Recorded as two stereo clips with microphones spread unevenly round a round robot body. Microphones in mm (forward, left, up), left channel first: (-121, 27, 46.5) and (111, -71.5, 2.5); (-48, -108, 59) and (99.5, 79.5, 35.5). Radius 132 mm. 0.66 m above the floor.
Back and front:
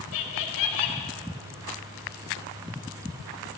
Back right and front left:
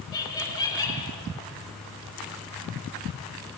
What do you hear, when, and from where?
0.1 s laughter: 155° left, 2.5 m